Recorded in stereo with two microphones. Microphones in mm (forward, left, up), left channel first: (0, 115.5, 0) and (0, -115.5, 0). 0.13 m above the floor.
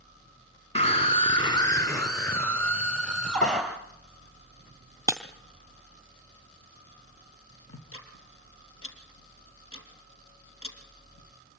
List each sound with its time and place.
0.8 s a scream: 30° left (ahead or behind), 1.8 m; by 3.6 s 5° left (ahead or behind), 3 m
3.4 s a pop: 35° left (ahead or behind), 6.5 m
5.1 s breaking glass: 15° right (ahead or behind), 1.5 m
7.7 s ticking: 65° left (ahead or behind), 3.5 m